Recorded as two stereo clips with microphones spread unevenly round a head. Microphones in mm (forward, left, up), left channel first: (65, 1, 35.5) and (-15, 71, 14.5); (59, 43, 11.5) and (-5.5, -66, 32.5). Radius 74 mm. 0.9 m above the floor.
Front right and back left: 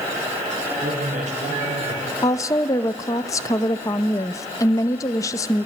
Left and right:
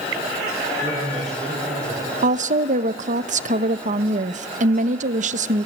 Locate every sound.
0.8 s a man speaking: 145° left, 5 m
2.2 s a woman speaking: 105° right, 0.8 m